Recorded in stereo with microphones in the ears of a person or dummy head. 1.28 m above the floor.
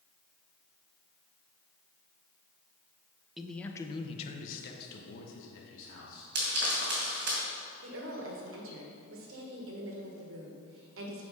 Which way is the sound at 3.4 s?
Centre (ahead or behind).